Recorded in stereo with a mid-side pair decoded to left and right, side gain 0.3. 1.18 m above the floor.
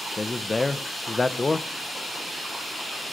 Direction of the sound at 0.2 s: 35° left.